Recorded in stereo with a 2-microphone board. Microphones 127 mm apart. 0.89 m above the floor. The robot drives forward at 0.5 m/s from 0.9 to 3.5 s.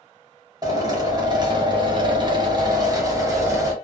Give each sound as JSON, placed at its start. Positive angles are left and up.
{"t": 0.6, "sound": "a drill", "side_deg": -30, "distance_m": 0.9}